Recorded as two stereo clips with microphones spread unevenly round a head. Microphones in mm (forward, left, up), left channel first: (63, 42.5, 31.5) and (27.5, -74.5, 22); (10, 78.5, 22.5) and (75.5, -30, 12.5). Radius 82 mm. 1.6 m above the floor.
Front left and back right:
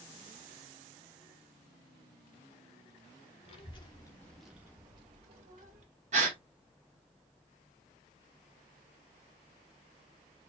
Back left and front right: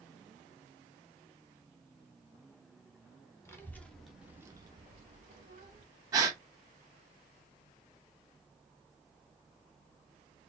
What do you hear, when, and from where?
3.5 s a child speaking: 60° left, 1.4 m; by 5.8 s 90° right, 1.8 m
6.1 s a gasp: 130° right, 1.1 m